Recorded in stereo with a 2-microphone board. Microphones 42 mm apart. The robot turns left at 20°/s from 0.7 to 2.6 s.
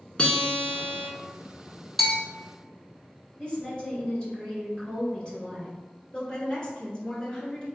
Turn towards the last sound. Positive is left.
turn(degrees=20)  # may be behind; listen again after turning